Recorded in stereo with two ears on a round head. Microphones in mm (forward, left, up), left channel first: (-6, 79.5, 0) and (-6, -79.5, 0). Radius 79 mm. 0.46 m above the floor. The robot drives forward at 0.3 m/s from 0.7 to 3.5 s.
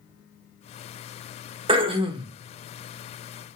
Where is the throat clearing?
30° right (ahead or behind), 0.7 m.